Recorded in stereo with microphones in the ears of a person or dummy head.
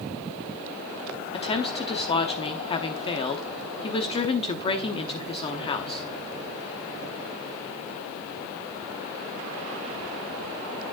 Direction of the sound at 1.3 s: 30° left (ahead or behind).